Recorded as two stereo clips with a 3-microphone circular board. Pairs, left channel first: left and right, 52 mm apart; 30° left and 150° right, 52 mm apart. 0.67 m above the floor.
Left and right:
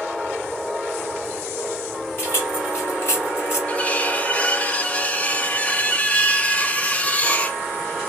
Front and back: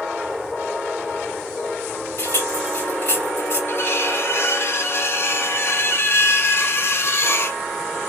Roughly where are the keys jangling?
Ahead left.